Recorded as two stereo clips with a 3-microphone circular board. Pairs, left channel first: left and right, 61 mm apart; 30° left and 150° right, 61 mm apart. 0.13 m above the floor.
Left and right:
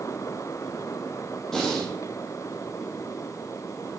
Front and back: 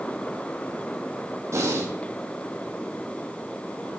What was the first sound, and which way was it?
Breathing, 175° left.